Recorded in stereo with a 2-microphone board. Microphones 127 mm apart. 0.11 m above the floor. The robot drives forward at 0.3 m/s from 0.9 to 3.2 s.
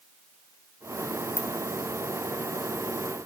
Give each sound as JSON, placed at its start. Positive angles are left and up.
{"t": 1.4, "sound": "a ringtone", "side_deg": 20, "distance_m": 0.8}